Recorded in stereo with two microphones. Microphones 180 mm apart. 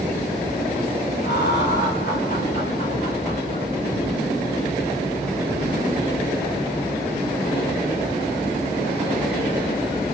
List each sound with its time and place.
1.2 s laughter: 65° left (ahead or behind), 5.5 m; by 3.7 s 30° left (ahead or behind), 5 m